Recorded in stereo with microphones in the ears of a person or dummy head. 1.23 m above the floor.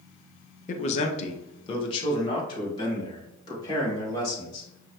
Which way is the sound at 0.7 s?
35° left (ahead or behind).